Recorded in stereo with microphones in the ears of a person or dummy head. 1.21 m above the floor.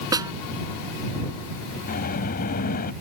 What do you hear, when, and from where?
0.1 s a snare drum: 15° right (ahead or behind)
1.9 s a sliding door: 45° left (ahead or behind)